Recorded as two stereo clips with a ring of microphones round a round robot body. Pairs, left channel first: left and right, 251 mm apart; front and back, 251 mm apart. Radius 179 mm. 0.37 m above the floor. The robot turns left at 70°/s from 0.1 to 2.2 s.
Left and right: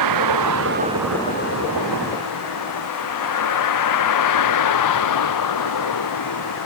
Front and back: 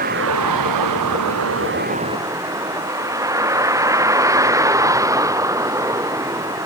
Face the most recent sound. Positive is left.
turn(degrees=100)